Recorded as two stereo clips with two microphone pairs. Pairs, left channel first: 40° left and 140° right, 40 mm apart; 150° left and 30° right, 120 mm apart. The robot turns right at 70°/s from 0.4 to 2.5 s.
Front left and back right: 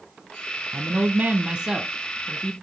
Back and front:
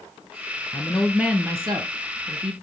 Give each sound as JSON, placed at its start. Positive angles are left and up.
{"t": 0.7, "sound": "a woman speaking", "azimuth_deg": -145, "distance_m": 1.9}